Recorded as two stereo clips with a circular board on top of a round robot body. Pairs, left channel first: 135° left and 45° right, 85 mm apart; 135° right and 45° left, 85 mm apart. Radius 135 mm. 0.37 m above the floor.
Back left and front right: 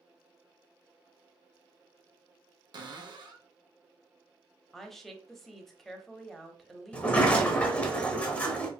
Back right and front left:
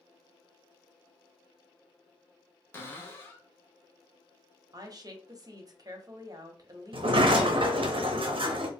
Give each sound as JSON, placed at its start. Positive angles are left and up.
{"t": 2.7, "sound": "a cupboard door", "azimuth_deg": -70, "distance_m": 1.0}
{"t": 4.7, "sound": "a woman speaking", "azimuth_deg": 50, "distance_m": 1.1}
{"t": 6.9, "sound": "a sliding door", "azimuth_deg": 60, "distance_m": 0.8}